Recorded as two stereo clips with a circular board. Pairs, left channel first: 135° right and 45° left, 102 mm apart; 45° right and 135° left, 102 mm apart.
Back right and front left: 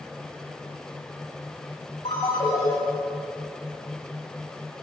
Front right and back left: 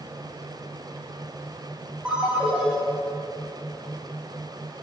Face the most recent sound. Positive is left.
turn(degrees=-145)